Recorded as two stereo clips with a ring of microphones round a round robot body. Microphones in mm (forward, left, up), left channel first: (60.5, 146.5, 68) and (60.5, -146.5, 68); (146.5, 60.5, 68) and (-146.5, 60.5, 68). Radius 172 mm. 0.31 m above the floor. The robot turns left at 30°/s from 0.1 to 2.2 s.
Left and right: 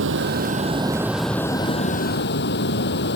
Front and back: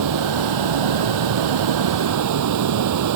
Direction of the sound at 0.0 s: 145° right.